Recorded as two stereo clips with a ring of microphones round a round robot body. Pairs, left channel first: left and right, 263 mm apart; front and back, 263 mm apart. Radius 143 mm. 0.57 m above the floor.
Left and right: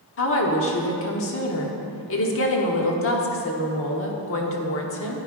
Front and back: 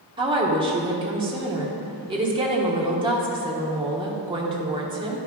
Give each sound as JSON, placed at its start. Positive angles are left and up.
{"t": 0.2, "sound": "a woman speaking", "azimuth_deg": 110, "distance_m": 1.1}